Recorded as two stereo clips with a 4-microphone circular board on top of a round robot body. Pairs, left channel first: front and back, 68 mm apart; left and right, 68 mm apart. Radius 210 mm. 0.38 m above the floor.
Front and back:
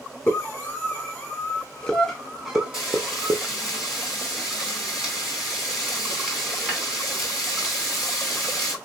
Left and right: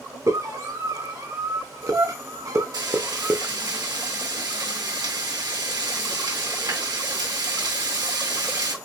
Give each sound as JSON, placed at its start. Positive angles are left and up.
{"t": 0.3, "sound": "a scream", "azimuth_deg": -55, "distance_m": 2.5}
{"t": 2.7, "sound": "frying", "azimuth_deg": -90, "distance_m": 3.0}